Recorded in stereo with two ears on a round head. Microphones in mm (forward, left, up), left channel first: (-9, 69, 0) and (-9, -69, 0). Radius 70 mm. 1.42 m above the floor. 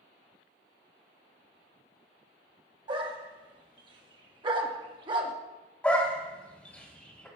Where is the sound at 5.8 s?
10° left (ahead or behind), 2 m.